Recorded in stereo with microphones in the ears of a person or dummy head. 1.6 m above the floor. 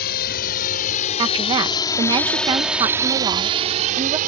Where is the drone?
55° left (ahead or behind); by 4.3 s 50° right (ahead or behind).